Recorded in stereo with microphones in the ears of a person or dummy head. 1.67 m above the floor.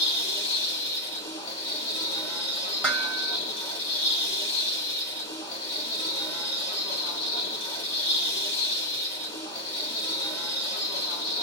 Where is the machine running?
25° left (ahead or behind), 1.7 m.